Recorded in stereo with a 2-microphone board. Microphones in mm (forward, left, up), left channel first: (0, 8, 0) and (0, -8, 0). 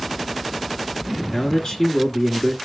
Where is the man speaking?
45° left (ahead or behind), 1.5 m.